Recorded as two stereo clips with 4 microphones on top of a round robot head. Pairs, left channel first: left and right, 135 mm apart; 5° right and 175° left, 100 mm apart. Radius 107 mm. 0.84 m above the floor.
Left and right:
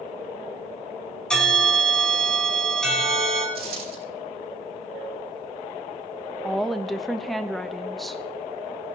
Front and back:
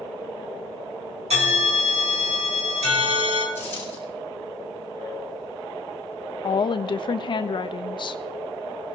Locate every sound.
1.3 s a bell: 175° left, 4 m
3.5 s a dropped coin: 80° right, 5.5 m
6.4 s a woman speaking: straight ahead, 0.9 m